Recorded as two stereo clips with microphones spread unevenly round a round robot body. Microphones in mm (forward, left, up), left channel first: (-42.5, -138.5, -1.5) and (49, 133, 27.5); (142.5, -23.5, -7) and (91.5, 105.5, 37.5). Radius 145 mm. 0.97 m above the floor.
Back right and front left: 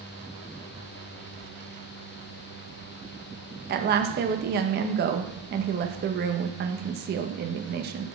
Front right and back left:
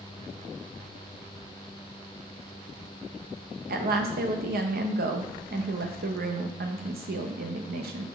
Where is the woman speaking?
130° left, 0.8 m.